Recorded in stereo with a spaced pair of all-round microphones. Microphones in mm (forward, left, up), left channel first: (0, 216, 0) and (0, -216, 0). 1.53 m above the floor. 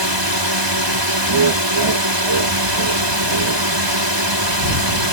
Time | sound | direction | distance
0.0 | a drone | 70° right (ahead or behind) | ?
1.3 | laughter | 80° right | ?